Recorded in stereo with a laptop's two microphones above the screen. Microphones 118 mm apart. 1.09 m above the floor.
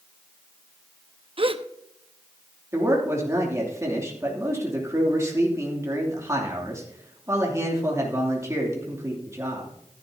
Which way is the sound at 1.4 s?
50° right (ahead or behind).